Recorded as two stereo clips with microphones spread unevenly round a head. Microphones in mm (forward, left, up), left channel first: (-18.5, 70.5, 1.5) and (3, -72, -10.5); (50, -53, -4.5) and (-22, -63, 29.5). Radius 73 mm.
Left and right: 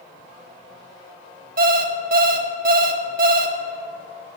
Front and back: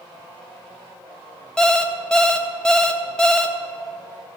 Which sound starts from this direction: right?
An alarm clock, at 1.6 s.